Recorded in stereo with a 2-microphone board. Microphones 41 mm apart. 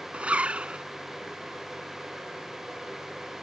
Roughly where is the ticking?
No ticking in this recording.